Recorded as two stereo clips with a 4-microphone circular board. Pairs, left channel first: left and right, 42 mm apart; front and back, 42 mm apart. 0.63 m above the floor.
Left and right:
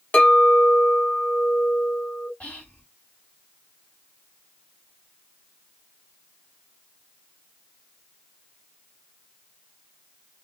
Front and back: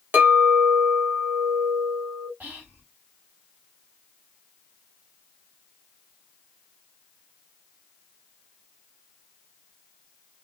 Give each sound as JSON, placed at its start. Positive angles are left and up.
{"t": 0.1, "sound": "a clink", "azimuth_deg": 140, "distance_m": 1.2}
{"t": 2.4, "sound": "whispering", "azimuth_deg": 140, "distance_m": 1.9}